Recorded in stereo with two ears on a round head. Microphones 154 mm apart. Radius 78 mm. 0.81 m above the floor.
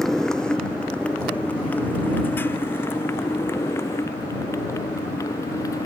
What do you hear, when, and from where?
0.0 s a motorcycle: 5° left (ahead or behind); by 5.9 s 20° left (ahead or behind)